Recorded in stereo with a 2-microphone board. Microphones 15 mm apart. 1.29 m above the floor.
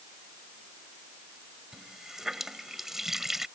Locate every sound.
1.7 s a running tap: 20° right (ahead or behind)